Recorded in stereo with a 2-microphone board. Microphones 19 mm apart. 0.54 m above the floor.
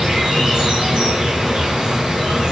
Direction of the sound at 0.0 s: 50° right (ahead or behind).